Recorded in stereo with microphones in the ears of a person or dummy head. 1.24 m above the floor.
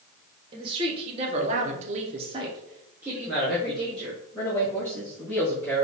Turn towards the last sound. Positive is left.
turn(degrees=10)  # may be behind; listen again after turning